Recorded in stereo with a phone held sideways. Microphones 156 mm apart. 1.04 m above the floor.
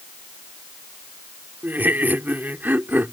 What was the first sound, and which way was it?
Laughter, 10° right (ahead or behind).